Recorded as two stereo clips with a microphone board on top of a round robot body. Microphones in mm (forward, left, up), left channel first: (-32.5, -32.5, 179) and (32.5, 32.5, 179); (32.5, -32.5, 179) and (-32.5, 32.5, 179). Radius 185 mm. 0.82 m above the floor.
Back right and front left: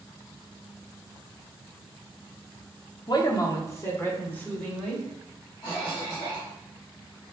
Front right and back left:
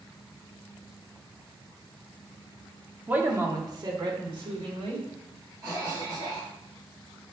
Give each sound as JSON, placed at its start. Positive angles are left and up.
{"t": 3.1, "sound": "a man speaking", "azimuth_deg": -155, "distance_m": 1.1}
{"t": 5.6, "sound": "a cough", "azimuth_deg": -175, "distance_m": 1.6}